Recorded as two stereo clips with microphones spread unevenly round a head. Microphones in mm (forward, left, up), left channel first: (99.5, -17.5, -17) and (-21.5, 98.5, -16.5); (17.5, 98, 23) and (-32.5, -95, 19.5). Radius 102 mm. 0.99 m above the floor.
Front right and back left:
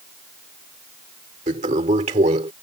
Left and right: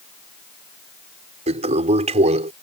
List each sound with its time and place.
1.5 s a toilet flushing: 165° right